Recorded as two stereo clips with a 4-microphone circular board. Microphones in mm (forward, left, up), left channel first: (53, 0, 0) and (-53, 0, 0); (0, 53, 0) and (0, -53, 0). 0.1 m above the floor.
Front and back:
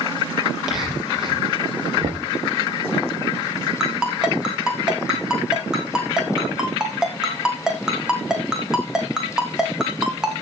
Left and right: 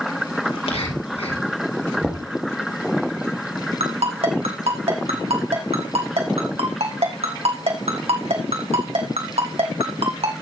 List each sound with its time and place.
0.5 s whispering: 95° left, 5 m
2.0 s knocking: 170° left, 3 m
3.8 s a ringtone: 95° right, 3.5 m